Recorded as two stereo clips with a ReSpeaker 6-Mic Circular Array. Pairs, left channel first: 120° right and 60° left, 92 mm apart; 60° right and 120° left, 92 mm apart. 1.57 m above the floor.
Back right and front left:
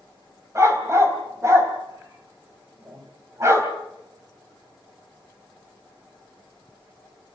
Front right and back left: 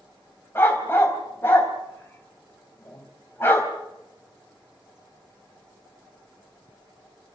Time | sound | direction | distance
0.6 | a dog barking | 5° left | 3 m